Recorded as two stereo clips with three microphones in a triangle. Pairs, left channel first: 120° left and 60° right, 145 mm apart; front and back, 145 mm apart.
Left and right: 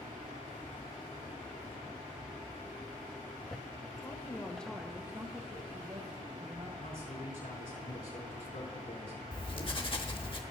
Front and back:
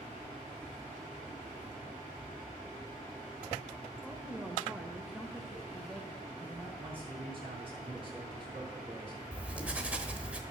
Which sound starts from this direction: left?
Writing, at 9.3 s.